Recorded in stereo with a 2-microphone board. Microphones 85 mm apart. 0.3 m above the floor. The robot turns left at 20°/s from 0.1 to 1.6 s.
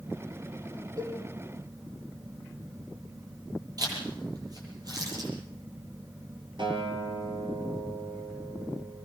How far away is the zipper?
About 9.5 m.